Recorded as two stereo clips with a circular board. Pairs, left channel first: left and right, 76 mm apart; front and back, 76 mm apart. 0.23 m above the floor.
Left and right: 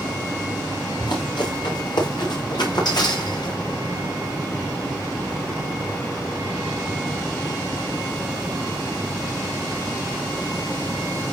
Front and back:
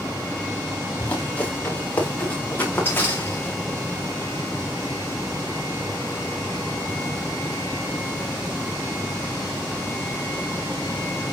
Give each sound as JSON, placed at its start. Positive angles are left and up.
{"t": 1.0, "sound": "running footsteps", "azimuth_deg": 75, "distance_m": 7.0}